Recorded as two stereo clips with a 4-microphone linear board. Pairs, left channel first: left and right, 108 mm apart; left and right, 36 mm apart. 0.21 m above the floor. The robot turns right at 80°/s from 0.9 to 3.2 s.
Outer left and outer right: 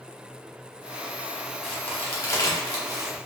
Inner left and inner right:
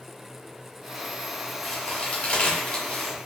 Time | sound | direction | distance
1.6 | a crack | 5° left (ahead or behind) | 1.1 m